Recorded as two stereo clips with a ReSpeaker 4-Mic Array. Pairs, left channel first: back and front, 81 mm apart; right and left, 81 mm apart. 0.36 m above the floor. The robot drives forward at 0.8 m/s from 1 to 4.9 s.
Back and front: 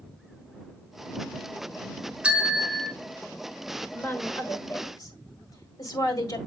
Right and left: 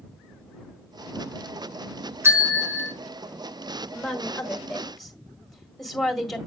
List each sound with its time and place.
2.2 s a bell: 65° left, 1.6 m; by 2.9 s 100° left, 1.6 m
3.9 s a woman speaking: 160° right, 1.2 m; by 6.4 s 175° right, 1.7 m